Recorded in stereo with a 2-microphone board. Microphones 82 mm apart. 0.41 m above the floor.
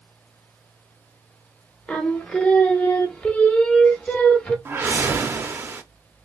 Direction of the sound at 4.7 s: 30° right (ahead or behind).